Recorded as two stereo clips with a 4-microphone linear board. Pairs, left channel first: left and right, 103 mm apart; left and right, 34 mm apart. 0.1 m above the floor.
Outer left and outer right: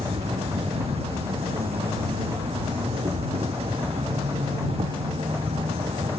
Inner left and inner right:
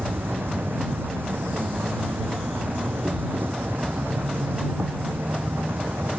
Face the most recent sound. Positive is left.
turn(degrees=-75)  # may be behind; listen again after turning